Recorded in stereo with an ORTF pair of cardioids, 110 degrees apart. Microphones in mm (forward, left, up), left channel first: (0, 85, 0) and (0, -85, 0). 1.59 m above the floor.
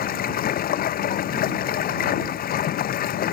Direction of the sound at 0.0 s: 60° left.